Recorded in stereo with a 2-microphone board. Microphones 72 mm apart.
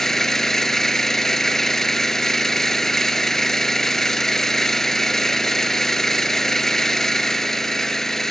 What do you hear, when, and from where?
0.0 s an engine running: 5° left (ahead or behind), 0.7 m